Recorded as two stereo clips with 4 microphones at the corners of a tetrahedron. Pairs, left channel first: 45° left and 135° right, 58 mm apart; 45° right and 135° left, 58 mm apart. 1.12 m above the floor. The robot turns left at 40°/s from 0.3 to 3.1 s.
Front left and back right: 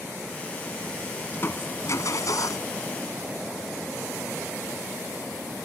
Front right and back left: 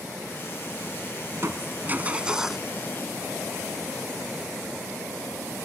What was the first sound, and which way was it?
Crushing, 100° left.